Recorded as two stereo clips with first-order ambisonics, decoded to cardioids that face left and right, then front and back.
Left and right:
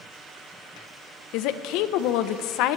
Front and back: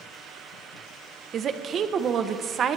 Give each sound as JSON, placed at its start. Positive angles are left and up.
{"t": 1.3, "sound": "a woman speaking", "azimuth_deg": 120, "distance_m": 0.9}